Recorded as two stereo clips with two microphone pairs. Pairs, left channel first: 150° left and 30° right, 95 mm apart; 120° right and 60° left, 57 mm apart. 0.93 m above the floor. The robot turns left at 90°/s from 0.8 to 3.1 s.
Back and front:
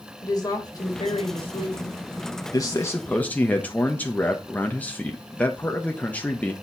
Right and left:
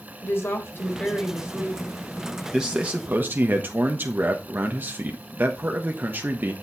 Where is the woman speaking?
165° right, 3.5 m; by 2.0 s 90° left, 3.5 m.